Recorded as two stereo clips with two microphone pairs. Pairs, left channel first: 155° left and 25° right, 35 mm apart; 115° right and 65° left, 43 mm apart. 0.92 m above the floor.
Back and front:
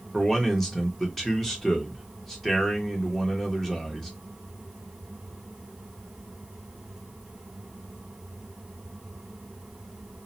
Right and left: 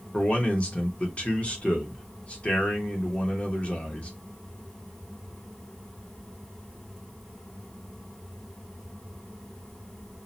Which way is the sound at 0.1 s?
130° right.